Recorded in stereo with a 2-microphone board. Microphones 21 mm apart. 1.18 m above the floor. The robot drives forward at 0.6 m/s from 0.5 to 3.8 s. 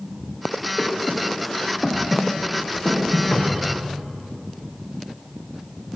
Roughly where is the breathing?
Left.